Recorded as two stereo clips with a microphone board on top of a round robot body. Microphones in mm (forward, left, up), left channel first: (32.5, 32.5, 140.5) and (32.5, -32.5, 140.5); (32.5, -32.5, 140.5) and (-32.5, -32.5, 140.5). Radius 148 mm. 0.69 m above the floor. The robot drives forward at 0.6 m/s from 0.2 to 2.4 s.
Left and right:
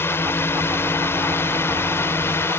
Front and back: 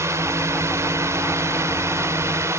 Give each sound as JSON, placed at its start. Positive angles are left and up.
{"t": 0.0, "sound": "a drone", "azimuth_deg": 140}